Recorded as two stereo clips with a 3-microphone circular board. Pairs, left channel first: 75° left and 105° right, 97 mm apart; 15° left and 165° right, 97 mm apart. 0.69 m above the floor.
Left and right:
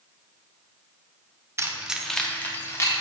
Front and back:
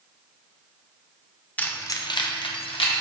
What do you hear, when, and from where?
1.6 s keys jangling: 55° right, 0.5 m; by 3.0 s 20° left, 1.1 m